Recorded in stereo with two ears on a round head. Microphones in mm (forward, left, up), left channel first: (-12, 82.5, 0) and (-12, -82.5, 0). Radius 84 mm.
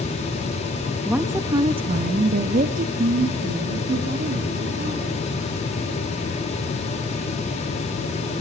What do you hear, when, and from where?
1.1 s a woman speaking: 5° right (ahead or behind), 0.6 m; by 5.2 s 50° right (ahead or behind), 2 m